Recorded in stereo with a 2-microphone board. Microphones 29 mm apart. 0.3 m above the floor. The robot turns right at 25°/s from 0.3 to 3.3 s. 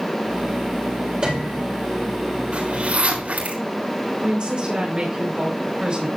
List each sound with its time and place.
1.2 s a piano: 30° right (ahead or behind), 4.5 m; by 1.6 s 40° right (ahead or behind), 4.5 m
2.5 s a zipper: 45° right (ahead or behind), 5 m; by 3.6 s 65° right (ahead or behind), 5 m
4.2 s a woman speaking: 40° right (ahead or behind), 5 m